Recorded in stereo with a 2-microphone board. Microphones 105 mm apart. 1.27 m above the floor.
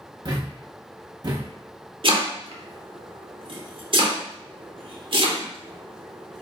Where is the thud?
40° right (ahead or behind), 0.7 m.